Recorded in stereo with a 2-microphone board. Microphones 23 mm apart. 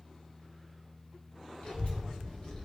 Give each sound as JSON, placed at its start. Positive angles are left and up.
{"t": 1.6, "sound": "a child speaking", "side_deg": 60, "distance_m": 1.3}